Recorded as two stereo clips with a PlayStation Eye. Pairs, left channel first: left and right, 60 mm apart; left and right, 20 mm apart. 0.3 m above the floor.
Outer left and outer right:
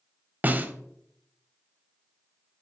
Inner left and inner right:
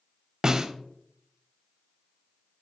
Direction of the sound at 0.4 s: 30° right (ahead or behind).